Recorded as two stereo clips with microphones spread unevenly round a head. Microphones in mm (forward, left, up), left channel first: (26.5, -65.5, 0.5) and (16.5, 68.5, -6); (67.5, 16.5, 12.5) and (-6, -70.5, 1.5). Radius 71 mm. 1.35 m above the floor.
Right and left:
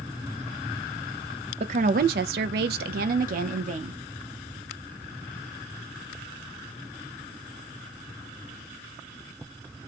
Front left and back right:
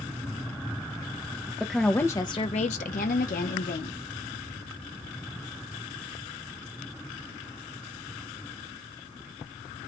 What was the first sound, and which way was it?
A woman speaking, 145° left.